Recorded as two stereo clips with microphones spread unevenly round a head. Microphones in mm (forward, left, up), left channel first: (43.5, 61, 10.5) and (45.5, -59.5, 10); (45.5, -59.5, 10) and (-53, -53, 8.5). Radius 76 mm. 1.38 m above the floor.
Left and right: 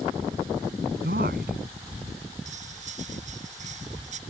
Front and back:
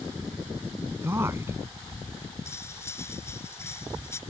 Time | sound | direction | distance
1.0 | a man speaking | 120° right | ?
2.5 | cutlery clinking | 70° right | ?